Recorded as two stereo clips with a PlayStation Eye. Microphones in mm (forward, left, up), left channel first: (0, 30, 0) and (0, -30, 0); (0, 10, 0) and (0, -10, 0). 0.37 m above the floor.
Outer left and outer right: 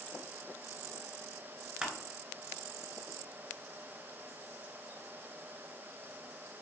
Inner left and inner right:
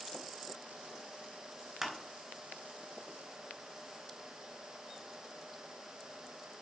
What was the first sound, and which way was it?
Crushing, 10° right (ahead or behind).